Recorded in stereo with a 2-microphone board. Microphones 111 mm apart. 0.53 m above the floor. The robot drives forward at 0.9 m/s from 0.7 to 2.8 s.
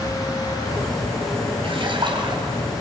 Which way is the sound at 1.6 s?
55° right (ahead or behind).